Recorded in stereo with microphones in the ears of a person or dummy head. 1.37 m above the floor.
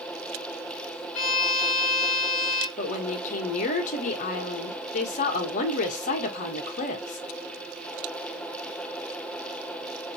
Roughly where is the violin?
Left.